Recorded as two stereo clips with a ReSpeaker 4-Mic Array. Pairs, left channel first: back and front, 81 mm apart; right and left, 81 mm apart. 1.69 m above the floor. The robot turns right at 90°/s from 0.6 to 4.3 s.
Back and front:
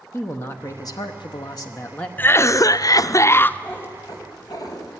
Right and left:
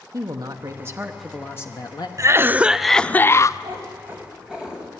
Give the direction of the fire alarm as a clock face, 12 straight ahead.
I don't hear a fire alarm.